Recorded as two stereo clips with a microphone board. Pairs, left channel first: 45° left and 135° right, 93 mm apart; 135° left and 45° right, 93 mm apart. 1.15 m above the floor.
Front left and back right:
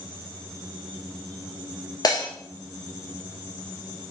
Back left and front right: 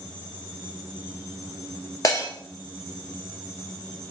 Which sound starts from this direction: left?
Breaking glass, at 2.0 s.